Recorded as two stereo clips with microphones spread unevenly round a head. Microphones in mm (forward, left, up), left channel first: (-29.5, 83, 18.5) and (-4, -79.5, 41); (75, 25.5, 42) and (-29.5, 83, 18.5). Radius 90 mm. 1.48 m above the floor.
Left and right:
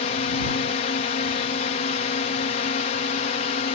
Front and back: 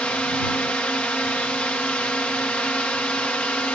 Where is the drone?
55° left.